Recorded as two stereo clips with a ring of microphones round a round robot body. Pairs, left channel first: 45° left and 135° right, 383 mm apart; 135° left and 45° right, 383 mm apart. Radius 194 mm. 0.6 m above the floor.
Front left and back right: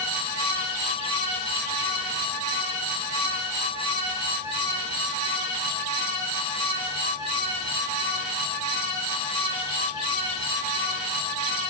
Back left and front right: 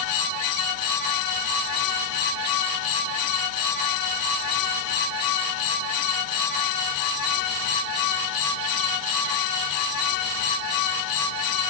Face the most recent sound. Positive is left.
No sound to turn to.